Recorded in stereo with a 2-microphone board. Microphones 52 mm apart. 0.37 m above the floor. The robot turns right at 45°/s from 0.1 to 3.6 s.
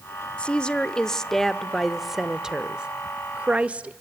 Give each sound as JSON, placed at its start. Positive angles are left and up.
{"t": 0.4, "sound": "a woman speaking", "side_deg": 20, "distance_m": 0.8}